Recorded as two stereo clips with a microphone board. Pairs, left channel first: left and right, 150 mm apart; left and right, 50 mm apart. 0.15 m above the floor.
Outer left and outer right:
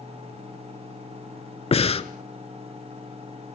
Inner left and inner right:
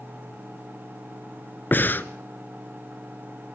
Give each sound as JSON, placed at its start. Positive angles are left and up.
{"t": 1.7, "sound": "breathing", "side_deg": 40, "distance_m": 0.9}